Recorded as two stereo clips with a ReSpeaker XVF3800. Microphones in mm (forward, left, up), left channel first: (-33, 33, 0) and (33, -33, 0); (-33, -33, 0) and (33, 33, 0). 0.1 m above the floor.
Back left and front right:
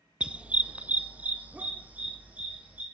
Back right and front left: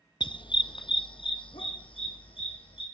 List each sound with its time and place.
0.2 s a dog barking: 120° right, 0.6 m